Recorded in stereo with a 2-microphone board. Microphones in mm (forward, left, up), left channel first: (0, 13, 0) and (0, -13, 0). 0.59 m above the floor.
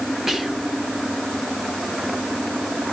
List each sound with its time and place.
0.3 s whispering: 15° right (ahead or behind), 1.6 m